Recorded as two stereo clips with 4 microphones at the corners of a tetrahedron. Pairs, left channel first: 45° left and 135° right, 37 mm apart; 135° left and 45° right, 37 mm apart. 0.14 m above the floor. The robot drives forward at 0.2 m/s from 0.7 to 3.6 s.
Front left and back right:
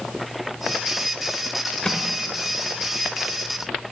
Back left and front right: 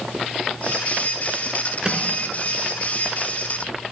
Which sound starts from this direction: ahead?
A microwave, at 1.8 s.